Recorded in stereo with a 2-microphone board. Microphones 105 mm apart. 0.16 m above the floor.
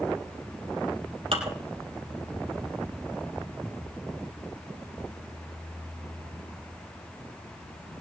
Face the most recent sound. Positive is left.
turn(degrees=-65)  # may be behind; listen again after turning